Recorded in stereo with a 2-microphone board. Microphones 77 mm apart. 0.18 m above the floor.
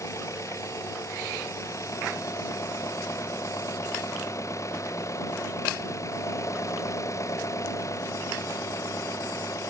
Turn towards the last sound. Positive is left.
turn(degrees=40)  # may be behind; listen again after turning